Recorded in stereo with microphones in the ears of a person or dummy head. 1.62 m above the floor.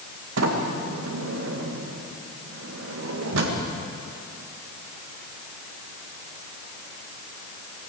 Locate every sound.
0.4 s a sliding door: 70° right (ahead or behind), 2 m